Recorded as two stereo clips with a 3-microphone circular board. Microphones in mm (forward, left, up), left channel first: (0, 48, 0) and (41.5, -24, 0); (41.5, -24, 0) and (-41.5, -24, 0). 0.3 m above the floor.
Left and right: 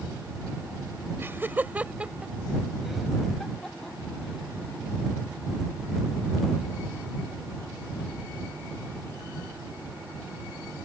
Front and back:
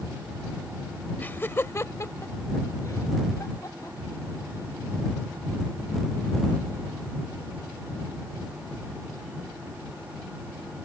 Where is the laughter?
45° right; by 4.8 s 45° left.